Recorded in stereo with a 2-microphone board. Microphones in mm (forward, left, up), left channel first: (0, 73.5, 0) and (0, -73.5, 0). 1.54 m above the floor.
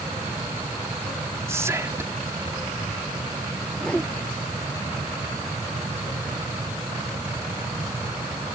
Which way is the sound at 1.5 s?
20° right (ahead or behind).